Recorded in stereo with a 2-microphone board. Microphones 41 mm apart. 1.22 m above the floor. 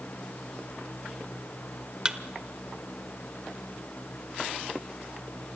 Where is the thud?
20° right (ahead or behind), 0.9 m.